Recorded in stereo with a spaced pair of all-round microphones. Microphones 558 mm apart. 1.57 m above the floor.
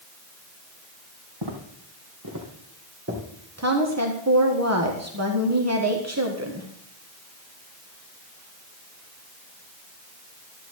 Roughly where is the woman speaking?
Right.